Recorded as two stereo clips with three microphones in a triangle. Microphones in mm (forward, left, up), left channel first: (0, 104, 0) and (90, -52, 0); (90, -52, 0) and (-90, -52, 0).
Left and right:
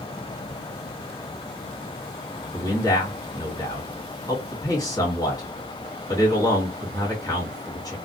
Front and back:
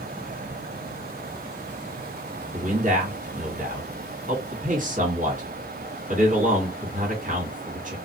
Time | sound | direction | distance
2.5 | a man speaking | straight behind | 1.4 m